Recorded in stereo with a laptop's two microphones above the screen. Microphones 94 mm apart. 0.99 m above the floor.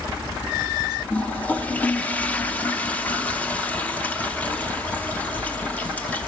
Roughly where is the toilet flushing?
Centre.